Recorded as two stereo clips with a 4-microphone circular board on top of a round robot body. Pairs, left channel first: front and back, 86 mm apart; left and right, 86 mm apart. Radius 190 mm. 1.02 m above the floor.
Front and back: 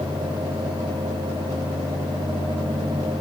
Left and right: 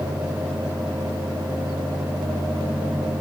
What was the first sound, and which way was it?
Only background noise.